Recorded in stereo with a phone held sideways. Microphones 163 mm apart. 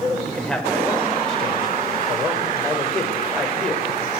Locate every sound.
0.2 s a man speaking: 5° left (ahead or behind), 5 m